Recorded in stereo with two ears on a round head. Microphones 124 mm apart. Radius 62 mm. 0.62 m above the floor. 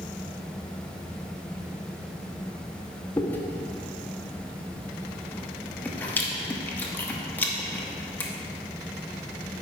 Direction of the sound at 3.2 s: 15° left (ahead or behind).